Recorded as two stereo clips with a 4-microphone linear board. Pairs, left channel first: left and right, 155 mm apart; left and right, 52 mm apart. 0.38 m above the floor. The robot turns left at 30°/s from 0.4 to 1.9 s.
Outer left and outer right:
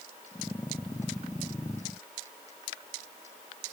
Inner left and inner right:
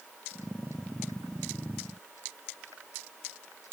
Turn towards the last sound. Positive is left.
No sound to turn to.